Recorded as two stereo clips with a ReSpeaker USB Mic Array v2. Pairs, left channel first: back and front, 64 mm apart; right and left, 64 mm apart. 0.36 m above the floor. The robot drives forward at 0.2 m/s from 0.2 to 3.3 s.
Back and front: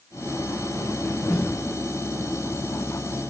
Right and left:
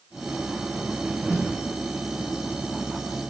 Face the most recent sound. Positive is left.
turn(degrees=-80)